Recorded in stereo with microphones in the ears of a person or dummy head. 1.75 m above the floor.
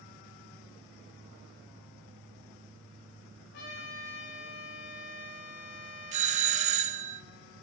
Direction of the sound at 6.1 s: 35° right (ahead or behind).